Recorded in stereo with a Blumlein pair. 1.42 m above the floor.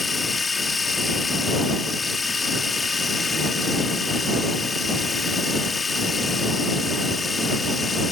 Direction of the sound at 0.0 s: 10° left.